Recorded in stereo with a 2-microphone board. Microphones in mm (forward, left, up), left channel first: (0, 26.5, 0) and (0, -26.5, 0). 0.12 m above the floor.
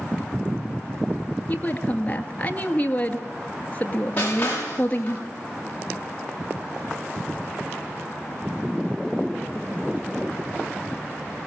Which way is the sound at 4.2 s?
30° left (ahead or behind).